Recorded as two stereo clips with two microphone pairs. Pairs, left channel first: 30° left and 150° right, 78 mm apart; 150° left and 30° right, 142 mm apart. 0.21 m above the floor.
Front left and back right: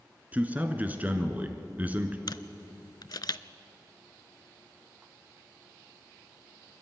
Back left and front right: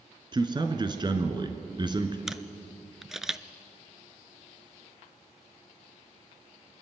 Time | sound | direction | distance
0.3 | a man speaking | 85° right | 1.9 m
2.3 | a camera shutter | 55° left | 0.5 m